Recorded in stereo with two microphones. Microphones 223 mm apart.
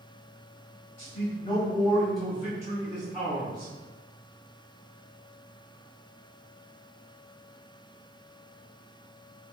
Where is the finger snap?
I don't hear a finger snap.